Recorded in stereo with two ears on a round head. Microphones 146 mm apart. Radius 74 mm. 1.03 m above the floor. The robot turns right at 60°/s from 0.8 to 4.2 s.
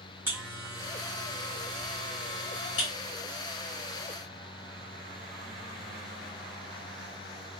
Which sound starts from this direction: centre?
A buzzer, at 0.3 s.